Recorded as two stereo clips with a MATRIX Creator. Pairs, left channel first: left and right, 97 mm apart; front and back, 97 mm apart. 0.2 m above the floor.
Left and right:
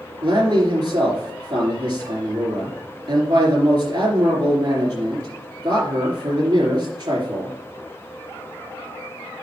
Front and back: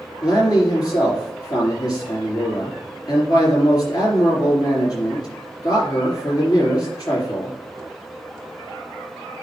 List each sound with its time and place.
0.2 s a man speaking: 45° right, 3.5 m